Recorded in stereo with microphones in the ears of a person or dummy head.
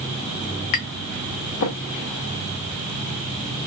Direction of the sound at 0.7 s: 60° left (ahead or behind).